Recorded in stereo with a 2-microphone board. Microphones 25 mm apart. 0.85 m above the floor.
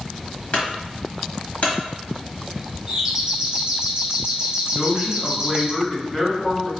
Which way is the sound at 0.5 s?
55° left (ahead or behind).